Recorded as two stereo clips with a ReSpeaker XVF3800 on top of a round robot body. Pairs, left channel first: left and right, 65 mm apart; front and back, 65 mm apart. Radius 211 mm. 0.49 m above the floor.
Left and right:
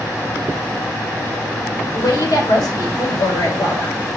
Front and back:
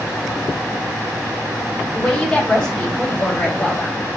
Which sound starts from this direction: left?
A woman speaking, at 1.9 s.